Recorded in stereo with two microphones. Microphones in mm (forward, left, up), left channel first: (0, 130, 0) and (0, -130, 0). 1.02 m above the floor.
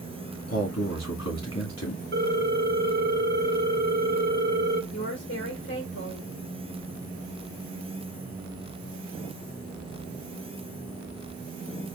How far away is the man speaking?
About 1.7 m.